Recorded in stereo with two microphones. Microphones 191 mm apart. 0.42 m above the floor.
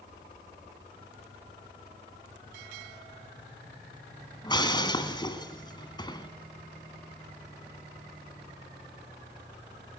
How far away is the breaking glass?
About 2.5 m.